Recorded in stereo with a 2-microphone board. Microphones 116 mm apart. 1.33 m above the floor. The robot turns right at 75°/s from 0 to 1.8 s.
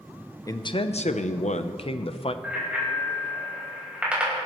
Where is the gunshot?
No gunshot in this recording.